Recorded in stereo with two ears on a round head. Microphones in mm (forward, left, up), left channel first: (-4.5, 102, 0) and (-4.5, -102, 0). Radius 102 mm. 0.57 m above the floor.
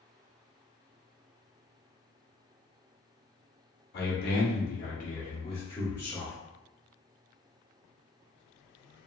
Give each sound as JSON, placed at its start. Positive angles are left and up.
{"t": 3.9, "sound": "a man speaking", "side_deg": 45, "distance_m": 1.1}